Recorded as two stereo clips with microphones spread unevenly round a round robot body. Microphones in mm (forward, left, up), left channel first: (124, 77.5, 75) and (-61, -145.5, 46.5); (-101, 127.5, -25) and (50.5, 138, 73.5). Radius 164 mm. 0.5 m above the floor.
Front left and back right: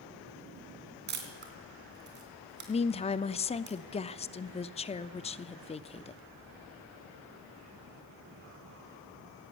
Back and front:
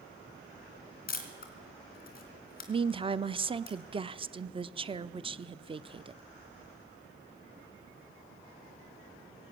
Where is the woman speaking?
105° left, 0.7 m.